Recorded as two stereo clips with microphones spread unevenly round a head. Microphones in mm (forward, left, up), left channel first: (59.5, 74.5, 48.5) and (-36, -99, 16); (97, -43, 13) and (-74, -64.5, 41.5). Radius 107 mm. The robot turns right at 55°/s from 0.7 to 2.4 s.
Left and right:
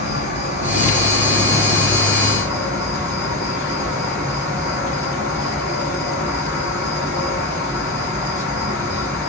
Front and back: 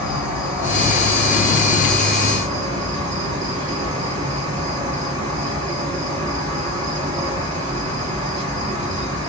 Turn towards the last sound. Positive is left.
turn(degrees=135)